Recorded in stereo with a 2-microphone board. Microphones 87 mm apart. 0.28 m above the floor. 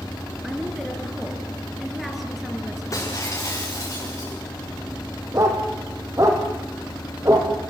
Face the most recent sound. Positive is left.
turn(degrees=-35)  # may be behind; listen again after turning